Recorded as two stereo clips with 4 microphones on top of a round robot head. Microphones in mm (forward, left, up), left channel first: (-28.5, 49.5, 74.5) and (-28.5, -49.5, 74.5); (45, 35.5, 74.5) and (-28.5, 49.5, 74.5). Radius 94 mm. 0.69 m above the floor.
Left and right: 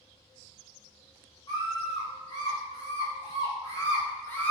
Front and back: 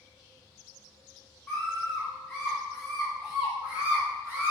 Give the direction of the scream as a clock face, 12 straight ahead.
10 o'clock.